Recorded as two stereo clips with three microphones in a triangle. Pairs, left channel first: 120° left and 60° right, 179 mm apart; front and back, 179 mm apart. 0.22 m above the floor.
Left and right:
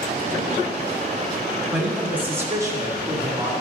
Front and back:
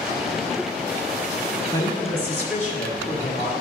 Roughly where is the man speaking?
Ahead left.